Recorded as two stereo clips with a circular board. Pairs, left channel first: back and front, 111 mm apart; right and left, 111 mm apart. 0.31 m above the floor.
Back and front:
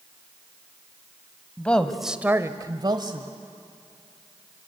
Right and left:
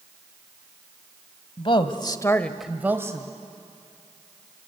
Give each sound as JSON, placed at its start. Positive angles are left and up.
{"t": 1.6, "sound": "a woman speaking", "azimuth_deg": -105, "distance_m": 1.6}